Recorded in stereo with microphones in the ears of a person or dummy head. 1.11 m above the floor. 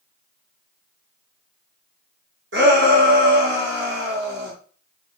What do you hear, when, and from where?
2.5 s a shout: 60° right (ahead or behind), 1.2 m